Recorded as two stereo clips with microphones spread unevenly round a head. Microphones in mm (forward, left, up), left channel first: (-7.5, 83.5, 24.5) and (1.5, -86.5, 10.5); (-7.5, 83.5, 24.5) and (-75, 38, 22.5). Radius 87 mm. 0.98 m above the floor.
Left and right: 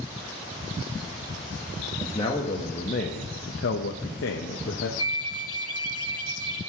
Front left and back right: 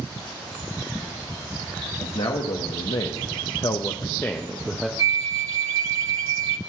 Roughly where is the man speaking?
Ahead left.